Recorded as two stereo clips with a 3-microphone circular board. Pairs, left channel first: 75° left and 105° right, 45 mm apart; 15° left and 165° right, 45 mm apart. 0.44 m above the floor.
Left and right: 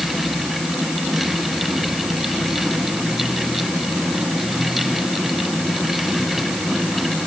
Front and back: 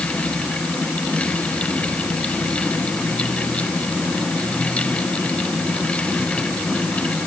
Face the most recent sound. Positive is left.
No sound to turn to.